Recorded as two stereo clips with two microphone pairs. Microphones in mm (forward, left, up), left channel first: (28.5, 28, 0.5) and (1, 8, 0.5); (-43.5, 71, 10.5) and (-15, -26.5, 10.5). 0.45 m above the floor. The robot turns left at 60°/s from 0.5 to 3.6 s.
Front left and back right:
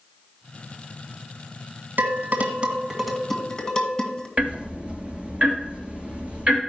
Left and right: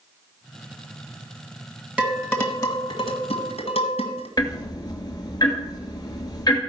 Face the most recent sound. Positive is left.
turn(degrees=160)